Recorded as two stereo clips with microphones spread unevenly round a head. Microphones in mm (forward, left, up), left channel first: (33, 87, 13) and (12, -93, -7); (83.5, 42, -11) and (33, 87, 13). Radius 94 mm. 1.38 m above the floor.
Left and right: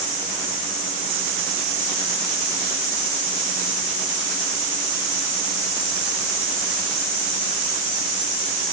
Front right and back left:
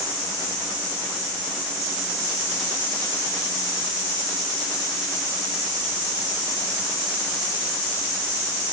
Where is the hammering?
I don't hear hammering.